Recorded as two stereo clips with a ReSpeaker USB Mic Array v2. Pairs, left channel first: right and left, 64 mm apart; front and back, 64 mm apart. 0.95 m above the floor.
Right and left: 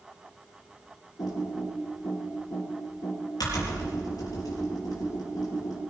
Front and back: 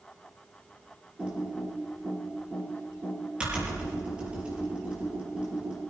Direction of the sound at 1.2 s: 100° right.